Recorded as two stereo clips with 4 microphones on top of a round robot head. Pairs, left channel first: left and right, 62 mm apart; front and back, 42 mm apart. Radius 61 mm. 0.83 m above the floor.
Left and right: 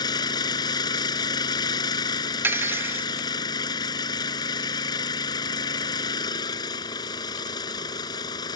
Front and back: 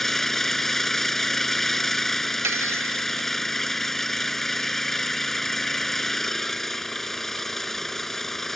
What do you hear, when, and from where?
0.0 s an engine running: 85° left
2.4 s cutlery clinking: 145° right